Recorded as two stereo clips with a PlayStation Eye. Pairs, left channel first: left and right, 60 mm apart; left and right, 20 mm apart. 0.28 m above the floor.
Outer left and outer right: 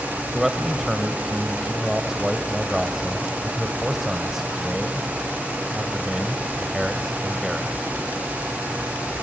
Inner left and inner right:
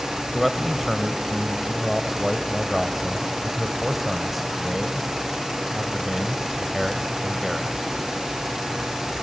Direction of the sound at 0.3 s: 5° right (ahead or behind).